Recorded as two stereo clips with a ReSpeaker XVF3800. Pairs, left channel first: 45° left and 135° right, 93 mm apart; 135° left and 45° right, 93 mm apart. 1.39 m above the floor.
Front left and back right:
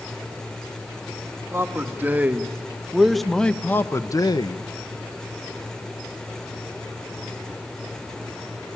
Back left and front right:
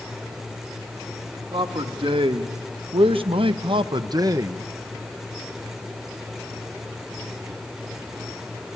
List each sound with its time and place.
1.5 s a man speaking: 70° right, 1.9 m; by 4.6 s 15° left, 0.9 m